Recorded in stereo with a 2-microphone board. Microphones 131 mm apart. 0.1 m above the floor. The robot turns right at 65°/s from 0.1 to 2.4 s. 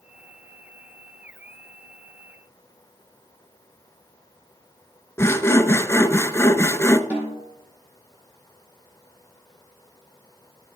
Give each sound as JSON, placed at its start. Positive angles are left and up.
{"t": 5.2, "sound": "sawing", "side_deg": 20, "distance_m": 0.5}
{"t": 7.1, "sound": "a snare drum", "side_deg": -10, "distance_m": 4.0}